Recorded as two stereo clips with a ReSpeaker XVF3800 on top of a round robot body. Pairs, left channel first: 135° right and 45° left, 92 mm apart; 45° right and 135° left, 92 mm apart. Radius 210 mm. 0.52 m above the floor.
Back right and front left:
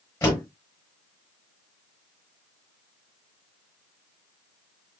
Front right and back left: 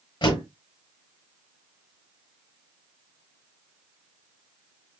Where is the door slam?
70° right, 8.5 m.